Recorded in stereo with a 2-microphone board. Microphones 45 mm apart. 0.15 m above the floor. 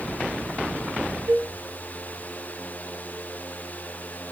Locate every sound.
1.3 s a cowbell: 65° right (ahead or behind), 6 m